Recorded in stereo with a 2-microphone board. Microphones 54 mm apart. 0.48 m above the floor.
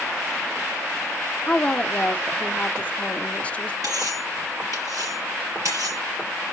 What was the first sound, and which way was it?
A woman speaking, 25° left (ahead or behind).